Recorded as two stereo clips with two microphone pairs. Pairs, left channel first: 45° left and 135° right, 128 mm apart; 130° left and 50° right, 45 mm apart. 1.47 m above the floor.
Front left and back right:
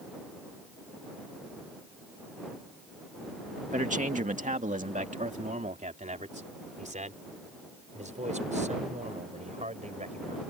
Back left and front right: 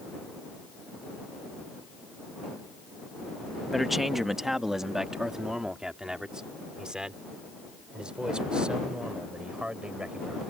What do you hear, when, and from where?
3.7 s a man speaking: 140° right; by 10.4 s 115° right